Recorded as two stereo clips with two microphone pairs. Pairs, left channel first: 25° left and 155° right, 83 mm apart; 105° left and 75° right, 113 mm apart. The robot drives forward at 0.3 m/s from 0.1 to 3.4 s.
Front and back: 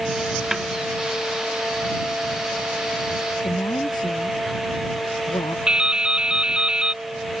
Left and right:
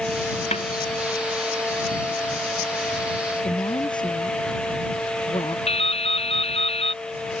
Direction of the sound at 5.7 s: 125° left.